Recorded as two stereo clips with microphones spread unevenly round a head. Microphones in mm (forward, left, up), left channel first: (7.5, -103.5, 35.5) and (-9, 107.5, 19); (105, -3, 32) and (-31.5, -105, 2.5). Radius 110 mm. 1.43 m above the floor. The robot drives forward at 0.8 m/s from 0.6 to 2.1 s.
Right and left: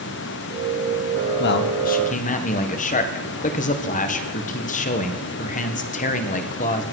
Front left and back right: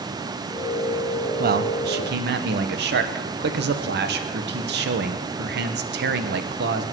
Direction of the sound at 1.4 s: 120° right.